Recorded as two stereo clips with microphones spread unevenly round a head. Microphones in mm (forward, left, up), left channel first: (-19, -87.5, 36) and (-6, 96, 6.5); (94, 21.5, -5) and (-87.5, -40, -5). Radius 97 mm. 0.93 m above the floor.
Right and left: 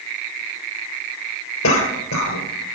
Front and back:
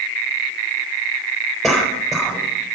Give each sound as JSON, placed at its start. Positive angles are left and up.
{"t": 1.6, "sound": "a cough", "azimuth_deg": -75, "distance_m": 3.5}